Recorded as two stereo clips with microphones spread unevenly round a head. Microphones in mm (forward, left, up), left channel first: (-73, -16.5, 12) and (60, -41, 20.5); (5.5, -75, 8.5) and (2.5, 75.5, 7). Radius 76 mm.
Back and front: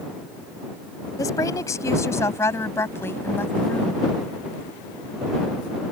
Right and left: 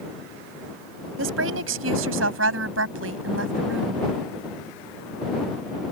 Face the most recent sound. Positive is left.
turn(degrees=90)